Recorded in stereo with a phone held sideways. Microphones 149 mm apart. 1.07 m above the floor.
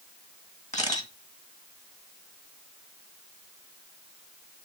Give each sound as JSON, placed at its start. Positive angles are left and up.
{"t": 0.7, "sound": "a camera shutter", "side_deg": 55, "distance_m": 1.8}